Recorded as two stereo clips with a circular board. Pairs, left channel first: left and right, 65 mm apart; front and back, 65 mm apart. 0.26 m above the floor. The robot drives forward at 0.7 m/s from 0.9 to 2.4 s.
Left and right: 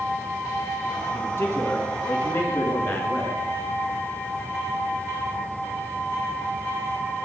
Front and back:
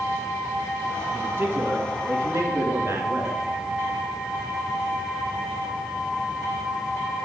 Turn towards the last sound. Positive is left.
turn(degrees=145)